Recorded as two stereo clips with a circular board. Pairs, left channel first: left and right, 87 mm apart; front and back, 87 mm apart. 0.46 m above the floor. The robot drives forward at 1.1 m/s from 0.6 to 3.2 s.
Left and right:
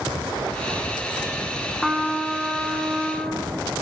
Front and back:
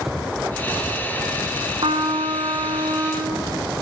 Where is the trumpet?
Straight behind, 1.6 m.